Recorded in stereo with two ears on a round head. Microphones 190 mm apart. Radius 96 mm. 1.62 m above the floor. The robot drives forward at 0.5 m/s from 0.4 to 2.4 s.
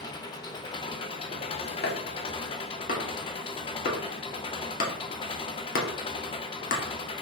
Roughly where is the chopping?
Left.